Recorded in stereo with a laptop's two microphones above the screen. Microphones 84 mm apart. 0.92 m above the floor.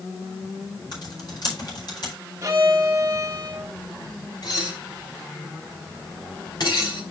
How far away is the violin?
About 1.8 m.